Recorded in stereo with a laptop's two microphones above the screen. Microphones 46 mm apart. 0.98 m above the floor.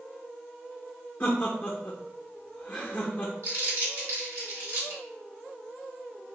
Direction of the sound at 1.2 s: 35° left (ahead or behind).